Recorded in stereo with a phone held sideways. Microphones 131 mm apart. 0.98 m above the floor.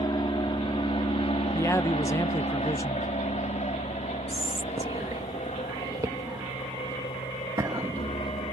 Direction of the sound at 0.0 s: 35° left (ahead or behind).